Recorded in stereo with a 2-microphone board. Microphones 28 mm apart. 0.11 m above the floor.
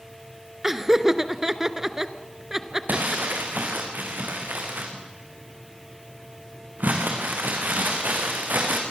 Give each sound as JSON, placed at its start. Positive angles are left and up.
{"t": 0.6, "sound": "laughter", "side_deg": -15, "distance_m": 1.1}
{"t": 2.9, "sound": "crumpling", "side_deg": -80, "distance_m": 4.5}